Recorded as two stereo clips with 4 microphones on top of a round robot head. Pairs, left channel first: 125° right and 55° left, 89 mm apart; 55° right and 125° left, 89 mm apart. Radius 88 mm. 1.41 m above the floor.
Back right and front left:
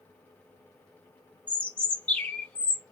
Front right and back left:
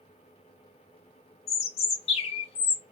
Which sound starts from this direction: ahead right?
A bird, at 1.5 s.